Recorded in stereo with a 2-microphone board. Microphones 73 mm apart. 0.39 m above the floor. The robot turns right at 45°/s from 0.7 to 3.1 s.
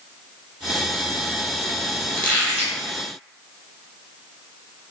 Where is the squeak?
25° left (ahead or behind), 1.5 m; by 2.8 s centre (ahead or behind), 1.5 m.